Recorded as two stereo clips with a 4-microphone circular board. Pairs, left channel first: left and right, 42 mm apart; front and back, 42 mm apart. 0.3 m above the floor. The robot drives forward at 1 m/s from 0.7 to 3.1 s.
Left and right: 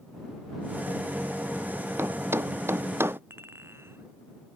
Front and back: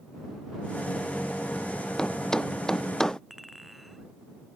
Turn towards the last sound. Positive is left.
turn(degrees=-95)